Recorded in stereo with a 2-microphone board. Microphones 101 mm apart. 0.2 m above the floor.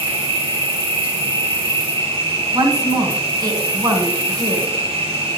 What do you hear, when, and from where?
0.0 s an insect: 70° right (ahead or behind), 3 m
2.5 s a woman speaking: 40° right (ahead or behind), 1.8 m